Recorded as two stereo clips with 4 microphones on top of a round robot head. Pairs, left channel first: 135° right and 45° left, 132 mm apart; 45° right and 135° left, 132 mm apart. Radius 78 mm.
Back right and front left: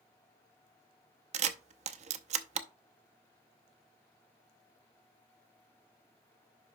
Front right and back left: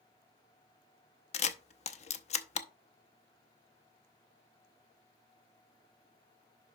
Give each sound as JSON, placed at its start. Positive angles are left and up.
{"t": 1.3, "sound": "a camera shutter", "azimuth_deg": 0, "distance_m": 0.7}